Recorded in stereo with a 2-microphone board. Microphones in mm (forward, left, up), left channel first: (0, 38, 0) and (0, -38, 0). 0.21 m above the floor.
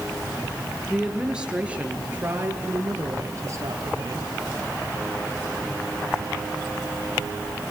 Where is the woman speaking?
5° right (ahead or behind), 4 m; by 4.3 s 45° right (ahead or behind), 4.5 m.